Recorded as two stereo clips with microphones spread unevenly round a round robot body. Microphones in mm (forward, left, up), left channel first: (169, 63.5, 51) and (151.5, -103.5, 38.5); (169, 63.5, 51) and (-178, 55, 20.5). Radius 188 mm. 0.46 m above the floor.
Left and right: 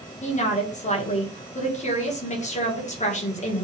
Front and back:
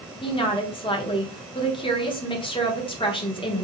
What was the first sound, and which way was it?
A woman speaking, 75° left.